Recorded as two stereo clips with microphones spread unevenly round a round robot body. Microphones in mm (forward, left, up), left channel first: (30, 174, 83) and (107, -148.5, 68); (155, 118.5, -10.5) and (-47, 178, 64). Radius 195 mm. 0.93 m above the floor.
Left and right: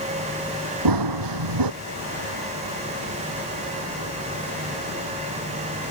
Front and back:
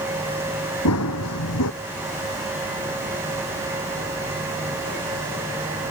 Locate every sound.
0.8 s running footsteps: 55° right